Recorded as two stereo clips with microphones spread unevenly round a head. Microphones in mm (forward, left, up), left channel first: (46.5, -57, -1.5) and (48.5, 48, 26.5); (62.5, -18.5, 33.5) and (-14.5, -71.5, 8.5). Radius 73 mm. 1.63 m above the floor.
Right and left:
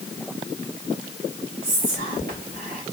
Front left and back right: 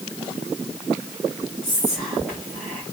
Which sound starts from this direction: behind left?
Whispering, at 1.6 s.